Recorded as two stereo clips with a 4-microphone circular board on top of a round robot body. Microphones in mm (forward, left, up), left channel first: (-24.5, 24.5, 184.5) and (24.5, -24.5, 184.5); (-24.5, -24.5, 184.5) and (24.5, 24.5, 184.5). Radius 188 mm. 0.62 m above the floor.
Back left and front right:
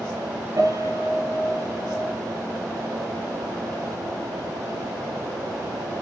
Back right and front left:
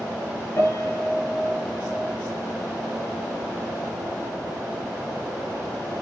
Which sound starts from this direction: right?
A piano, at 0.6 s.